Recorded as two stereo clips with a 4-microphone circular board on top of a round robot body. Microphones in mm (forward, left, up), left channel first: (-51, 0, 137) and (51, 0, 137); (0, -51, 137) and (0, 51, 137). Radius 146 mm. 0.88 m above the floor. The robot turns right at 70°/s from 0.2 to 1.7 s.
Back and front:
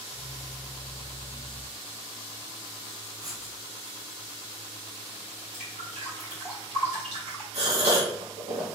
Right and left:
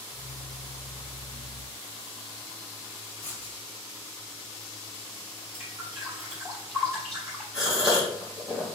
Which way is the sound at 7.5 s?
5° left.